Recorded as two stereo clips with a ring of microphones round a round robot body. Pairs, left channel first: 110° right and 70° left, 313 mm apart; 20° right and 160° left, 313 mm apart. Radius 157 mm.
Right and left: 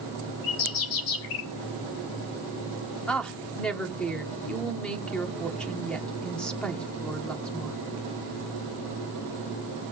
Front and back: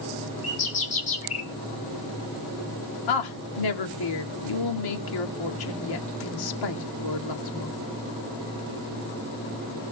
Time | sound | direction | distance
0.4 | a bird | 90° right | 2.5 m
3.1 | a woman speaking | 25° right | 1.9 m